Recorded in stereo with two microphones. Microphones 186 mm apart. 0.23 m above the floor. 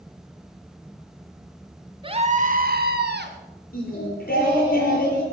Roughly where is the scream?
Right.